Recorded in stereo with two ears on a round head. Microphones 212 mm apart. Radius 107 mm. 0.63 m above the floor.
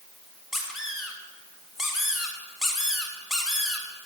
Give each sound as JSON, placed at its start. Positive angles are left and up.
{"t": 0.5, "sound": "a squeak", "side_deg": 0, "distance_m": 2.5}